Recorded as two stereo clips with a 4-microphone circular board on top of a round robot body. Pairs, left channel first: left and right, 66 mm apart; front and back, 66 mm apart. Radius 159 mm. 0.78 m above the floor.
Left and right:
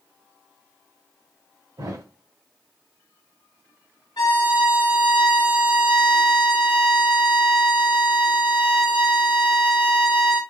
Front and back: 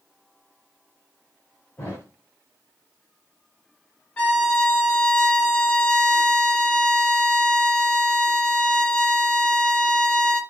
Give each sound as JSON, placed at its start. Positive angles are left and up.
{"t": 1.8, "sound": "a thud", "azimuth_deg": -65, "distance_m": 2.5}
{"t": 4.2, "sound": "a violin", "azimuth_deg": 70, "distance_m": 0.9}